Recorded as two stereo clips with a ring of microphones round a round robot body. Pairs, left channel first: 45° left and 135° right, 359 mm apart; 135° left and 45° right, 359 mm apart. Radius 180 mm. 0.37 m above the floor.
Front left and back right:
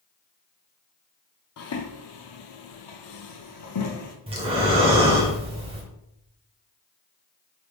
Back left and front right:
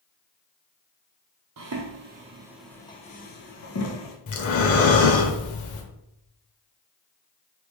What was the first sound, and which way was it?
Footsteps, 5° right.